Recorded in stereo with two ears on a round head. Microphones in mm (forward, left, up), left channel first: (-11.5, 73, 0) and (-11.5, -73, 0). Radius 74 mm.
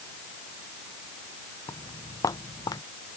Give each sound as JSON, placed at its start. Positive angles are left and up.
{"t": 1.7, "sound": "footsteps", "side_deg": 20}